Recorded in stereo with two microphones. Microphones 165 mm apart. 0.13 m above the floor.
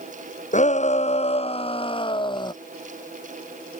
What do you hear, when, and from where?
0.5 s a shout: 45° left (ahead or behind); by 2.5 s 25° left (ahead or behind)